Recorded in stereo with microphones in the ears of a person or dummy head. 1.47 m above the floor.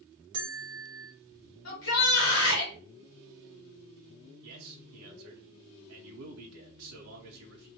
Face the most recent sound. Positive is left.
turn(degrees=-80)